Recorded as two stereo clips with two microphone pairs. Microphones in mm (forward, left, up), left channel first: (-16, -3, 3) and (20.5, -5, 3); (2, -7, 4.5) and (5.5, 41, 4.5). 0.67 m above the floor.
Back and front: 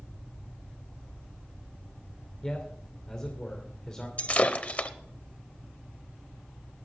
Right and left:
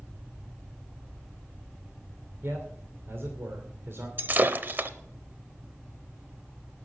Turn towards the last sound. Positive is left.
turn(degrees=130)